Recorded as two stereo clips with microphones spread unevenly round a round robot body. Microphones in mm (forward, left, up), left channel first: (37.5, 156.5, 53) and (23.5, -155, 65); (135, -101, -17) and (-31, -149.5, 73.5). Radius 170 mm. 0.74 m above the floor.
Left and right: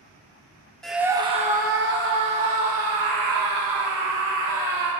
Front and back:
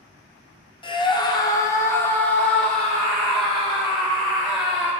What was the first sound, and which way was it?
A scream, straight ahead.